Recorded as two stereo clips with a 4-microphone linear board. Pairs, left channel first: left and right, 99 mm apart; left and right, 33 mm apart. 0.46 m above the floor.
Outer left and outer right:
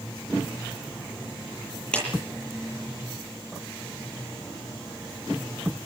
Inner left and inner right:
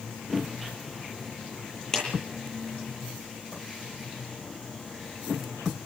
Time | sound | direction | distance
1.9 | a clap | 10° left (ahead or behind) | 10 m